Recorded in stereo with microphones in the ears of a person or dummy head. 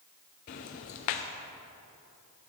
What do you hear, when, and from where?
0.5 s ticking: 35° left (ahead or behind), 0.6 m